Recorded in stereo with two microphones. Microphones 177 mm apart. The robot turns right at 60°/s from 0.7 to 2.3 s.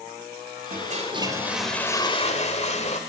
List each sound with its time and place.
0.7 s a toilet flushing: 55° right, 1.7 m; by 3.0 s 40° left, 1.7 m